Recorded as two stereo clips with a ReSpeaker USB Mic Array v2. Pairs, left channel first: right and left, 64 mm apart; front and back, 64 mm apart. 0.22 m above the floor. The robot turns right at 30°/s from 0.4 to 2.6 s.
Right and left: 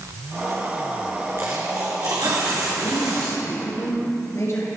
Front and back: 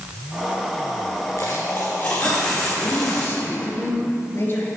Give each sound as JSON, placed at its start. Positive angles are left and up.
{"t": 1.4, "sound": "a dropped coin", "azimuth_deg": 45, "distance_m": 3.0}
{"t": 2.8, "sound": "a man speaking", "azimuth_deg": -50, "distance_m": 3.5}